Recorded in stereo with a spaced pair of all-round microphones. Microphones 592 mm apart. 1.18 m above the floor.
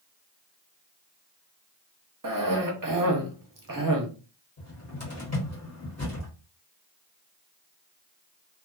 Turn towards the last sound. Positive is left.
turn(degrees=25)  # may be behind; listen again after turning